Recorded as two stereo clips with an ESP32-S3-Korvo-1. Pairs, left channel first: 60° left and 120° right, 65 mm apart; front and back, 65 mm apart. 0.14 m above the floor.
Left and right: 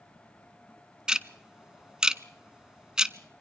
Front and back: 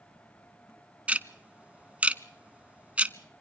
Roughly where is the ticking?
Behind.